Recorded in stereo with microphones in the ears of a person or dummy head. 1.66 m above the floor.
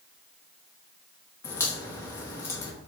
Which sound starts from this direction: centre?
A crack, at 1.4 s.